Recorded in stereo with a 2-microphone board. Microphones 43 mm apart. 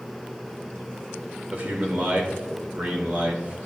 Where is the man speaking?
40° right (ahead or behind), 2 m.